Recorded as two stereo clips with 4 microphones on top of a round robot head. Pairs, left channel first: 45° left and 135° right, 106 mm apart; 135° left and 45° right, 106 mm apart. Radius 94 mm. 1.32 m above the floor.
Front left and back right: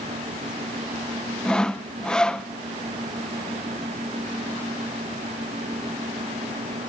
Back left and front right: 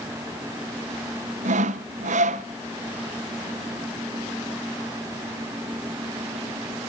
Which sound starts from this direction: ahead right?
Sawing, at 1.4 s.